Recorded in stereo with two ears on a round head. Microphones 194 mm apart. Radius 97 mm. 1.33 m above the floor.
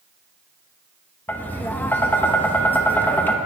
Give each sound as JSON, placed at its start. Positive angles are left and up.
{"t": 1.3, "sound": "tapping", "side_deg": 10, "distance_m": 0.9}